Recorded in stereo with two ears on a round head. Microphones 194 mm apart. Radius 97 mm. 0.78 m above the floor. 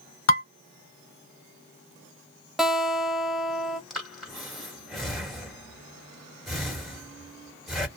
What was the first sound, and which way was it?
Dishes clattering, 60° left (ahead or behind).